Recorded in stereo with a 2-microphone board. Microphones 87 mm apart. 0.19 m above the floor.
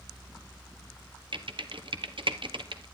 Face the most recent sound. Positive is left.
turn(degrees=-70)  # may be behind; listen again after turning